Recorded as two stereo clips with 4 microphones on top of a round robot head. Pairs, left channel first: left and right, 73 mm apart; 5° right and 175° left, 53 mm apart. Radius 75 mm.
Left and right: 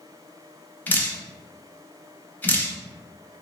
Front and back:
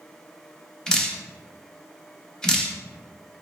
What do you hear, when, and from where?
0.9 s dripping: 60° left, 0.9 m